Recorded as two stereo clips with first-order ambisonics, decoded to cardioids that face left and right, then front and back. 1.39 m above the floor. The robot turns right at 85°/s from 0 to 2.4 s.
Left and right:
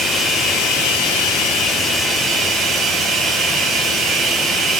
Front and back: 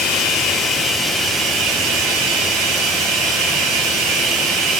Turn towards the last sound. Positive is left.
turn(degrees=-150)